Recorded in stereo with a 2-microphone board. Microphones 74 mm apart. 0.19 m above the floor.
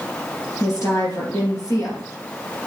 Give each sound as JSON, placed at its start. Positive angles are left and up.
{"t": 0.6, "sound": "a woman speaking", "side_deg": 50, "distance_m": 4.0}